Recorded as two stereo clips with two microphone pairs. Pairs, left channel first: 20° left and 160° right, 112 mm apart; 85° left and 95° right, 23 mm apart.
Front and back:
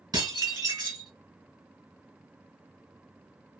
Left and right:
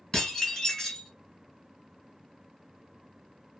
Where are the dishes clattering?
150° left, 1.8 m.